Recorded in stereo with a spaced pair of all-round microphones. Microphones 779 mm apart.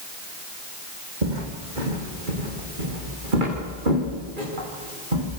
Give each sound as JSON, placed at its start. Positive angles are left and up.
{"t": 1.2, "sound": "footsteps", "side_deg": -60, "distance_m": 3.5}